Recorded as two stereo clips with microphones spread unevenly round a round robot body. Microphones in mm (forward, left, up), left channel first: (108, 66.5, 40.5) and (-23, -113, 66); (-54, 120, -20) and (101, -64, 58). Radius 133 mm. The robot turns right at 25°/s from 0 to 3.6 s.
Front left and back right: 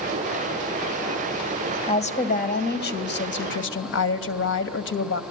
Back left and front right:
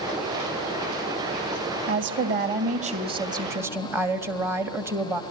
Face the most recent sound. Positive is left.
turn(degrees=40)